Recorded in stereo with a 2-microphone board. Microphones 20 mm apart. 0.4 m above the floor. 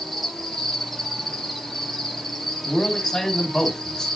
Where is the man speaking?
25° left (ahead or behind), 3.5 m.